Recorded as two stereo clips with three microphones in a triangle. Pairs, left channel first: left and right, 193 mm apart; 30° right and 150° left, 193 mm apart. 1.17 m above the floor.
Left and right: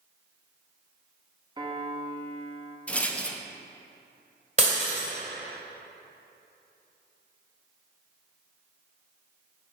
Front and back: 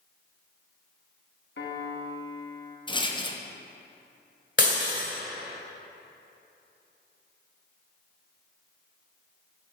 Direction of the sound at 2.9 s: 10° left.